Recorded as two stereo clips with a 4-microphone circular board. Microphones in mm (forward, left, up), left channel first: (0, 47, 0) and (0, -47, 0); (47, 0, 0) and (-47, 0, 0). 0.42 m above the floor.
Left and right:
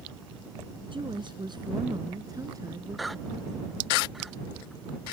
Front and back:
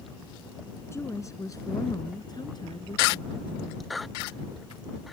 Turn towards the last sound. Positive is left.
turn(degrees=-30)